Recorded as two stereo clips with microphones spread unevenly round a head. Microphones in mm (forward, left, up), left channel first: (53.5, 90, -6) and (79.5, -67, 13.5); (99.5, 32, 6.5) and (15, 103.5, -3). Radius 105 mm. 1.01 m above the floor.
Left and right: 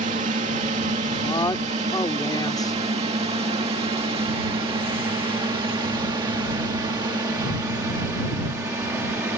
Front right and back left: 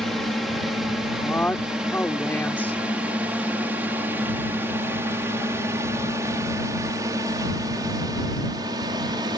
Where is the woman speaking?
35° left.